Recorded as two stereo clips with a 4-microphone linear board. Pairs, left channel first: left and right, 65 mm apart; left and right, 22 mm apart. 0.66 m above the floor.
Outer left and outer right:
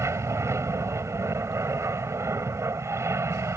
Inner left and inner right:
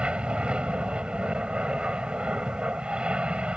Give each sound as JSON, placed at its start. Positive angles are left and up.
{"t": 0.0, "sound": "an aircraft", "side_deg": -45}